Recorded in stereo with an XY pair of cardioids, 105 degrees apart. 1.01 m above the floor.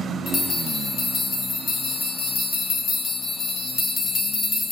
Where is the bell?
60° left, 0.7 m.